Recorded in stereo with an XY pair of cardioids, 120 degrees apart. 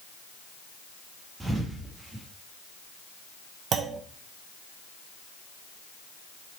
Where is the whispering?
I don't hear whispering.